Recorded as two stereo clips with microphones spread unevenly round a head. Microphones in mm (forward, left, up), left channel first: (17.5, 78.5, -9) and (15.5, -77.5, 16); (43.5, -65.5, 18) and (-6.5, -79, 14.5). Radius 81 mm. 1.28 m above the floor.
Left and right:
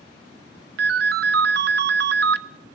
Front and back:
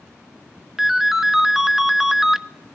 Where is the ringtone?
80° right, 0.7 m.